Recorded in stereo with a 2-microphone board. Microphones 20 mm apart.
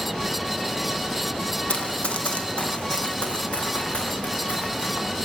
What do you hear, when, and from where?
1.7 s running footsteps: 60° left (ahead or behind), 2.5 m; by 5.2 s 65° left (ahead or behind), 7 m